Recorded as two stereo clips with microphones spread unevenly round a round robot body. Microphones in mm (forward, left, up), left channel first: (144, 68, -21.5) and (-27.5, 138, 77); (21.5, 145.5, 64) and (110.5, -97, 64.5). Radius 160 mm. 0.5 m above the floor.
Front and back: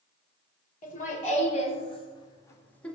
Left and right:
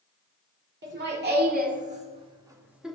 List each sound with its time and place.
0.8 s laughter: 25° right, 2.5 m; by 3.0 s 20° left, 1.5 m